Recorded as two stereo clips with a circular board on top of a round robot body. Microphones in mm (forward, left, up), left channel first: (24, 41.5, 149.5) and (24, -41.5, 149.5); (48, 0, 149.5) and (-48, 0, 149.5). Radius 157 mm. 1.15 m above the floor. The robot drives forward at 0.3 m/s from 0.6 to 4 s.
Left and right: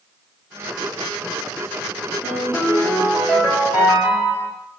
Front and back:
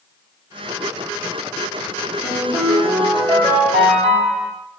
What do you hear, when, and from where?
2.2 s a ringtone: 155° right, 1.1 m; by 4.5 s 160° right, 1.6 m